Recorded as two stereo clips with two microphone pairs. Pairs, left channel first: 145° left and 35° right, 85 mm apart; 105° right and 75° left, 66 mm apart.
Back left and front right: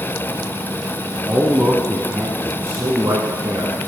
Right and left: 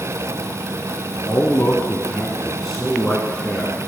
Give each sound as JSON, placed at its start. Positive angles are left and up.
{"t": 1.2, "sound": "a man speaking", "azimuth_deg": -120, "distance_m": 1.1}